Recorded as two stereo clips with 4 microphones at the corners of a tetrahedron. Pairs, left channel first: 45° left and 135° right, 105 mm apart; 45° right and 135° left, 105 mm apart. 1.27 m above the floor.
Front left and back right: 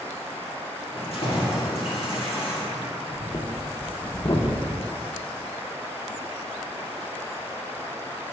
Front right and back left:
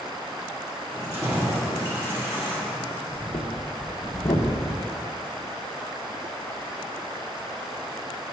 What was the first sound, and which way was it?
Keys jangling, 70° left.